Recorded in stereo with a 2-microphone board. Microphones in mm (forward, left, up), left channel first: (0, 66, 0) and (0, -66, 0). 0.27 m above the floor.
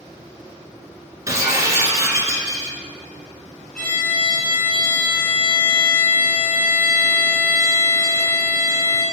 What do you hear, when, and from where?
1.3 s breaking glass: 25° right (ahead or behind), 2.0 m
3.8 s a violin: 5° left (ahead or behind), 2.5 m